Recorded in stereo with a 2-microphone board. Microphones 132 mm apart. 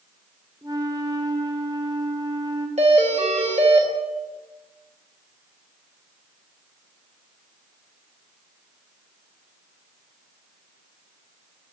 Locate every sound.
0.6 s a flute: 35° right (ahead or behind), 1.7 m
2.8 s a doorbell: 60° right (ahead or behind), 3.5 m